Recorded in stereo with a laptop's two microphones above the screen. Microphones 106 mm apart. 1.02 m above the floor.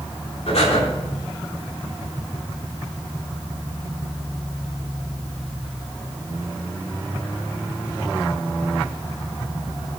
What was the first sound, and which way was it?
Breathing, 75° left (ahead or behind).